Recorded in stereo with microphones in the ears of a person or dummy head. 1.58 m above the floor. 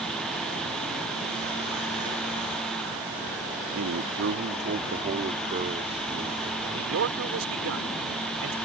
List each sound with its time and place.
3.8 s a man speaking: 70° right (ahead or behind); by 6.5 s 25° right (ahead or behind)
6.6 s a man speaking: 85° right